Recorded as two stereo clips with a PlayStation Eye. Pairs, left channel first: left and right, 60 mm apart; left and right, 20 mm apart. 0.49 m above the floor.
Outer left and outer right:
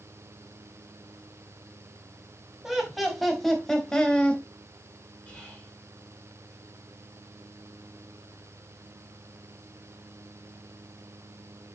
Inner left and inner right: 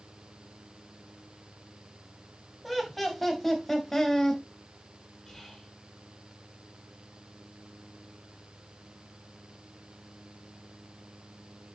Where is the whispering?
20° left (ahead or behind), 6 m.